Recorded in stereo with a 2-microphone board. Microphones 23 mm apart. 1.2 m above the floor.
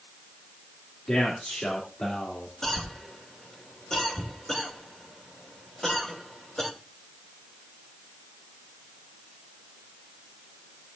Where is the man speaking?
55° left (ahead or behind), 2 m; by 2.5 s 65° left (ahead or behind), 3 m.